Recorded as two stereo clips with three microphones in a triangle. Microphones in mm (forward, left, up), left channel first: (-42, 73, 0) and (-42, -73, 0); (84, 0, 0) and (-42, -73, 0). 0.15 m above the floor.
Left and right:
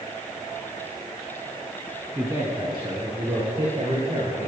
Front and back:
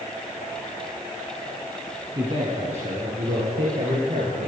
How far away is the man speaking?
About 1.6 m.